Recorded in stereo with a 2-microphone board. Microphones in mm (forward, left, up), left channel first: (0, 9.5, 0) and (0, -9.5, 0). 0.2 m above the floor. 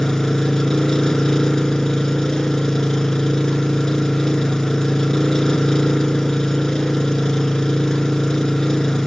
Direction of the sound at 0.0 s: 30° left (ahead or behind).